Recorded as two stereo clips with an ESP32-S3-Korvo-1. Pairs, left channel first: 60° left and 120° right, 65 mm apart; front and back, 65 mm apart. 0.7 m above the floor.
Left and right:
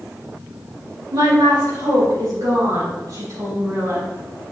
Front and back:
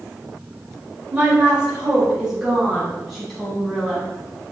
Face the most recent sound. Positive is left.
turn(degrees=-80)